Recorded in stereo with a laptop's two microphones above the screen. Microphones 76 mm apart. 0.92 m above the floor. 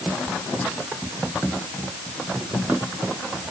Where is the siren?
No siren in this recording.